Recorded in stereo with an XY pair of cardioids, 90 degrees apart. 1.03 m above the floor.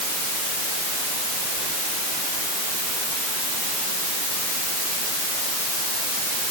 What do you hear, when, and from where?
Only background noise.